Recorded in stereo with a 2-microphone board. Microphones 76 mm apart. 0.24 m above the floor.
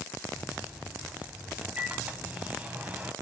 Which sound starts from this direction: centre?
A microwave, at 0.3 s.